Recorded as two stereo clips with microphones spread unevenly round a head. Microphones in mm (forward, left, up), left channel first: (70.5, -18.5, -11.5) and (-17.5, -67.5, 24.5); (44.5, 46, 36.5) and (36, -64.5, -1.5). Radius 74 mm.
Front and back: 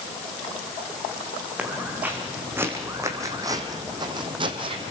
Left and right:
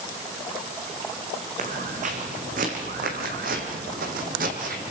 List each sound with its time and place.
1.6 s footsteps: 80° right, 5 m; by 4.9 s 145° right, 3.5 m